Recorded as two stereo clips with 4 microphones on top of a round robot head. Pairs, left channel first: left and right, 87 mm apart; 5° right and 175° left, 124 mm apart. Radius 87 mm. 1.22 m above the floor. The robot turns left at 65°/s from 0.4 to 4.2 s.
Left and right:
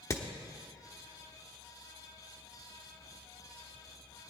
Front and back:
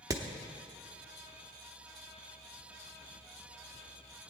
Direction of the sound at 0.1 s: 120° left.